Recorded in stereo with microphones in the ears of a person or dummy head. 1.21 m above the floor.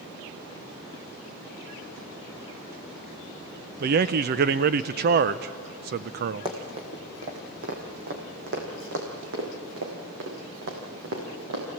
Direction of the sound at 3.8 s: 50° right (ahead or behind).